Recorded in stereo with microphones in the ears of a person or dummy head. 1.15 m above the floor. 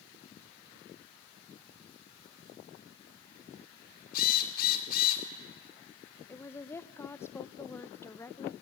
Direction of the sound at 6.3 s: 15° left (ahead or behind).